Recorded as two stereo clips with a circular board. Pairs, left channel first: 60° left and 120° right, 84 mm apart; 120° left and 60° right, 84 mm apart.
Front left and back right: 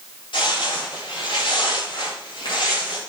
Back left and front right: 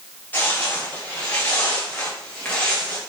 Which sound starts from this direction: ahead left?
Footsteps, at 0.3 s.